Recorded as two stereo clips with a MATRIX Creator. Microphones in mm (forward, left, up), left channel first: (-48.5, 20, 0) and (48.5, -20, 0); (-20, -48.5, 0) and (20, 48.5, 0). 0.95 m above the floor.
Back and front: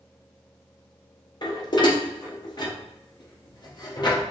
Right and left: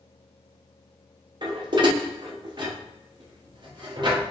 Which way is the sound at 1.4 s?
110° left.